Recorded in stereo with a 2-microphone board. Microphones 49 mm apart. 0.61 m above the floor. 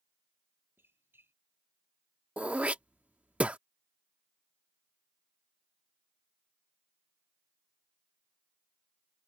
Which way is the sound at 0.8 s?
50° right (ahead or behind).